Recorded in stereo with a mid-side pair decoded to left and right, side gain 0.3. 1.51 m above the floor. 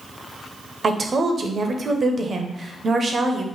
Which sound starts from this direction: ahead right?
A woman speaking, at 0.8 s.